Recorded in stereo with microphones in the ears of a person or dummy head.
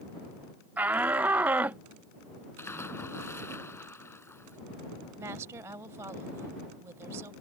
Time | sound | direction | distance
0.8 | a shout | 20° right (ahead or behind) | ?
2.6 | a splash | 5° left (ahead or behind) | ?
5.2 | a woman speaking | 10° right (ahead or behind) | ?